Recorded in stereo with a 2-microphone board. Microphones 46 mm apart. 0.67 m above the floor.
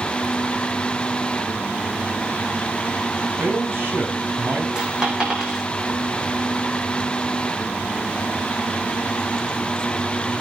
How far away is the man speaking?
About 5.5 m.